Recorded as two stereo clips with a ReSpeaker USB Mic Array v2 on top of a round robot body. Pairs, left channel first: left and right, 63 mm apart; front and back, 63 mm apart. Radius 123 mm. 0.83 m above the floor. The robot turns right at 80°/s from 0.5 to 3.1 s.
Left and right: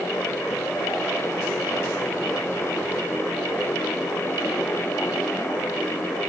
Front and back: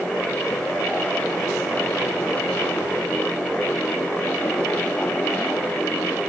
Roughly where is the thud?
No thud in this recording.